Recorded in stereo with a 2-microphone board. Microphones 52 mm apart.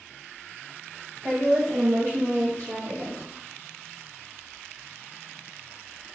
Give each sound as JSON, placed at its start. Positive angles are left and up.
{"t": 1.2, "sound": "a woman speaking", "side_deg": -55, "distance_m": 0.9}